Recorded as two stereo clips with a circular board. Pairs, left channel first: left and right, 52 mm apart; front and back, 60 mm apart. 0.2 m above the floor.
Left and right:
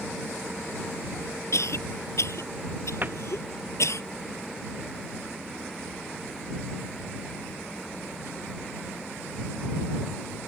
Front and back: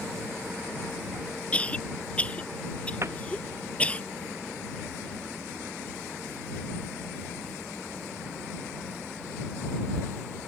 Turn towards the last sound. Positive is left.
turn(degrees=-140)